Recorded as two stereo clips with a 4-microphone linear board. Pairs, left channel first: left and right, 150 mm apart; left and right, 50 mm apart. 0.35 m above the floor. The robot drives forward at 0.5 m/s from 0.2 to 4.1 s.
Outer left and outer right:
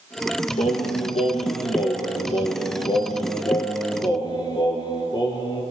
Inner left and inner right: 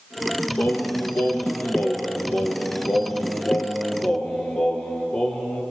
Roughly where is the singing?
Left.